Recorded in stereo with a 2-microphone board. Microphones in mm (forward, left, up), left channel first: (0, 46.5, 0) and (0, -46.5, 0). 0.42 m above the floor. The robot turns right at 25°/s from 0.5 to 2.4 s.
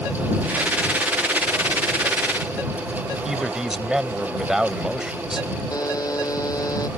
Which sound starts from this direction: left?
A buzzer, at 5.7 s.